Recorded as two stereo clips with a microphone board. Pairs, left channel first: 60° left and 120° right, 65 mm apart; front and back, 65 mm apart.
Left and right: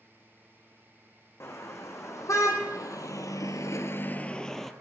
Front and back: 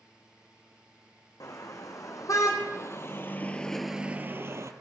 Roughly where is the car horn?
Ahead.